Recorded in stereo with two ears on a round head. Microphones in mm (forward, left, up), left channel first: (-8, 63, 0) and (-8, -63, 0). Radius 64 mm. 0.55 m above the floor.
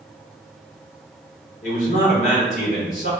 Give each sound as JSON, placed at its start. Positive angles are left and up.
{"t": 1.6, "sound": "a man speaking", "side_deg": 55, "distance_m": 1.3}